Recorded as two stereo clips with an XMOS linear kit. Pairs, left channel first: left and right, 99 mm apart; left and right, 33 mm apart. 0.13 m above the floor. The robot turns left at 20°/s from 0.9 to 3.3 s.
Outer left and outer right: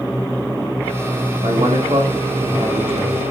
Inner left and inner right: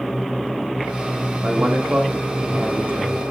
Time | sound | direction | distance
1.4 | a man speaking | 85° right | 8 m